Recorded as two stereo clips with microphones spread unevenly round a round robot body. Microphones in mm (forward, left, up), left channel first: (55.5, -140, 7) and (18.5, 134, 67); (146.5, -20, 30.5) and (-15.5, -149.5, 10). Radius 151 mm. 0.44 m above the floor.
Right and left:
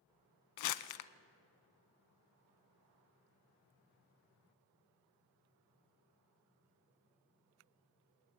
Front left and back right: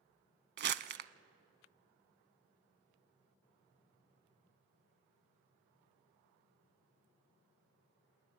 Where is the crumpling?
100° right, 0.6 m.